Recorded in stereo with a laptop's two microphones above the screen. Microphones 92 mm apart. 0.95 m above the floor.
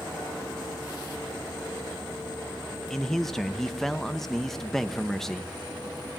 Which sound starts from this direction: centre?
A man speaking, at 2.9 s.